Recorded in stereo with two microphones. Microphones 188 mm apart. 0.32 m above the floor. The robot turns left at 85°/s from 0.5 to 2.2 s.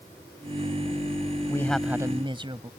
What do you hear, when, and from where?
1.5 s a man speaking: 25° left; by 2.7 s 35° right